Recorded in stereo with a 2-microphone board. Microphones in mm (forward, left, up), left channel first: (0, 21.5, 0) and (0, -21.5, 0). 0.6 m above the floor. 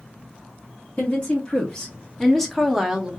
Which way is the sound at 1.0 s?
35° left (ahead or behind).